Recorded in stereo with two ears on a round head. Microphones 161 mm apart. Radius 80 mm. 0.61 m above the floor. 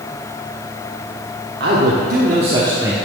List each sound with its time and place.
1.6 s a man speaking: 60° right (ahead or behind), 1.2 m; by 2.9 s 15° right (ahead or behind), 1.0 m